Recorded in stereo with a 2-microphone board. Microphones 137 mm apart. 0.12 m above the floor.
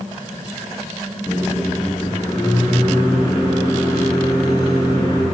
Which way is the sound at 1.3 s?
25° left (ahead or behind).